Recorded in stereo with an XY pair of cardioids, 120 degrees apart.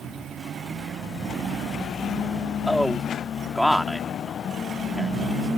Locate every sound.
2.7 s a man speaking: 5° left